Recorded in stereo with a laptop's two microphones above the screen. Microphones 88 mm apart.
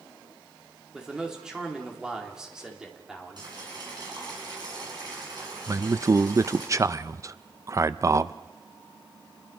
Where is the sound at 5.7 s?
35° right (ahead or behind), 0.6 m.